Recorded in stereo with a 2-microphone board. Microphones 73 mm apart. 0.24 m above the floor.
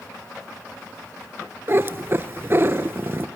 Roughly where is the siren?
I don't hear a siren.